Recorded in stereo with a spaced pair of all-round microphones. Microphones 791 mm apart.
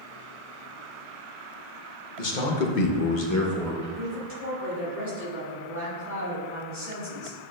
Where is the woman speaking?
60° right (ahead or behind), 3 m.